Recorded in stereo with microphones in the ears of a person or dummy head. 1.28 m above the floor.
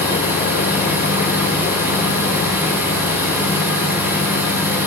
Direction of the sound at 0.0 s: 10° right (ahead or behind).